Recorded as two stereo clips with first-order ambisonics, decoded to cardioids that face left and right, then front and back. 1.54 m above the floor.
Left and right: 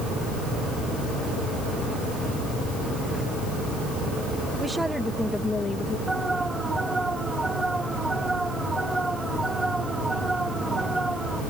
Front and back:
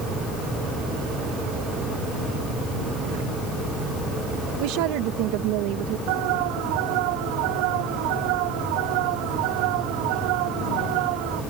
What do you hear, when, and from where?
4.6 s a woman speaking: 170° right; by 6.0 s 155° left
6.1 s an alarm: 175° right